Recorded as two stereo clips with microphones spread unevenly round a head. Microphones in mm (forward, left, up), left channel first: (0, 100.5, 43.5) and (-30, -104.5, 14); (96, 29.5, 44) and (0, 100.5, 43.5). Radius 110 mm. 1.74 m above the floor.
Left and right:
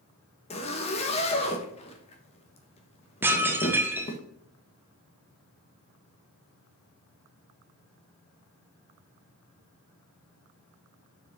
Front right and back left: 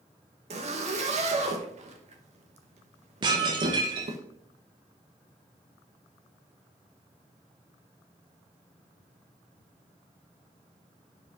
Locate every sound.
0.5 s a zipper: 130° left, 1.3 m
3.2 s dishes clattering: 175° left, 0.9 m